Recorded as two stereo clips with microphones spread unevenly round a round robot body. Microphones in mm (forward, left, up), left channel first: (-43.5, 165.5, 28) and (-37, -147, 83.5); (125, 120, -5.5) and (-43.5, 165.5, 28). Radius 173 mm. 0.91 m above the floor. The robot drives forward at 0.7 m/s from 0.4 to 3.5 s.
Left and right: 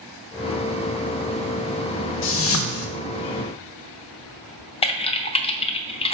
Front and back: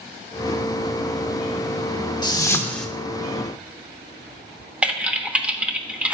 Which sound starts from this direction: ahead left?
A whoosh, at 2.2 s.